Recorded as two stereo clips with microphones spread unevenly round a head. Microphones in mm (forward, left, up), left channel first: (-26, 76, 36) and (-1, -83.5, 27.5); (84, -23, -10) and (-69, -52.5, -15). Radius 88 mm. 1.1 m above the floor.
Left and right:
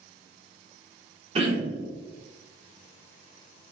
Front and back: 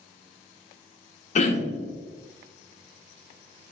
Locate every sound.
1.4 s throat clearing: 25° right, 0.7 m